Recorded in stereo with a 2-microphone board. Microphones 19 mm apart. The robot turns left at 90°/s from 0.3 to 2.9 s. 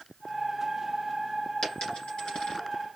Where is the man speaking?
No man speaking in this recording.